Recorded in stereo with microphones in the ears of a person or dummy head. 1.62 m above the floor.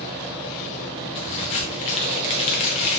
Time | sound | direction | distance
1.1 | a crack | 30° left (ahead or behind) | 0.7 m